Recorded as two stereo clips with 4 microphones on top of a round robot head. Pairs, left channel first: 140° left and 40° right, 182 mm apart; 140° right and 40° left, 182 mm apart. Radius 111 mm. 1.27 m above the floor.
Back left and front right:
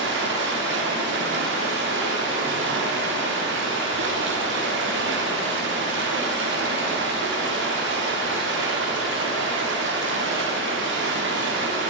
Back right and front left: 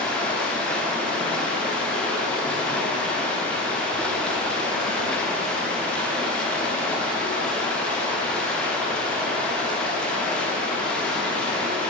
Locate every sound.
0.0 s running water: 55° right, 0.8 m